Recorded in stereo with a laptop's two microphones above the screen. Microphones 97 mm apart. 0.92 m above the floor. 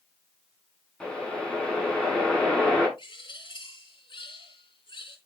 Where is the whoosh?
10° left (ahead or behind), 7 m.